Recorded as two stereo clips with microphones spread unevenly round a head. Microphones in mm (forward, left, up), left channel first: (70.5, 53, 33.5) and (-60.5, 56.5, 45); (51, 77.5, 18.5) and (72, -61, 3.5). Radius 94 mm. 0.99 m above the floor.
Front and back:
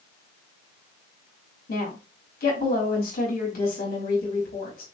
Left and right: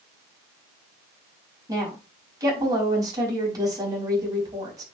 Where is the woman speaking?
20° right, 5.5 m.